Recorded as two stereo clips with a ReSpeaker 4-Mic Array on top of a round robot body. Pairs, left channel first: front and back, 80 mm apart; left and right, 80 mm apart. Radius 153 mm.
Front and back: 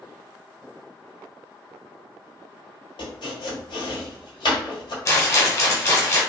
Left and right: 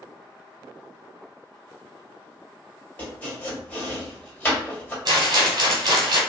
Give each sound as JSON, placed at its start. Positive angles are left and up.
{"t": 3.0, "sound": "chopping", "azimuth_deg": 20, "distance_m": 1.4}
{"t": 5.0, "sound": "a rattle", "azimuth_deg": -55, "distance_m": 1.2}